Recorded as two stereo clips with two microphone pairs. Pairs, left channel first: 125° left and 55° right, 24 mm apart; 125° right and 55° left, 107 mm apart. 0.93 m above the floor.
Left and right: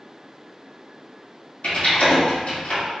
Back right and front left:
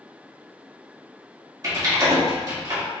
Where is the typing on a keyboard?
110° left, 1.9 m.